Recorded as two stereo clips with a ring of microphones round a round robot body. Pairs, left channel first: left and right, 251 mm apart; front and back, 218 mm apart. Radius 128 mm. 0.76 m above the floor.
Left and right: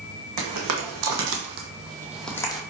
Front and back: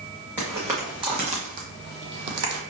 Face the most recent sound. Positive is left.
turn(degrees=160)